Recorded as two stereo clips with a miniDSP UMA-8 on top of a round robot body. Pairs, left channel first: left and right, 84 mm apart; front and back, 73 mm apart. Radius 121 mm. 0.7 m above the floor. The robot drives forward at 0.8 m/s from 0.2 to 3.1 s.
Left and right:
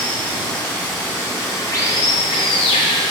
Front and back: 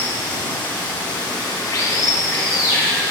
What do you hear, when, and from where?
0.0 s running water: 15° left, 1.9 m; by 3.1 s 135° left, 0.7 m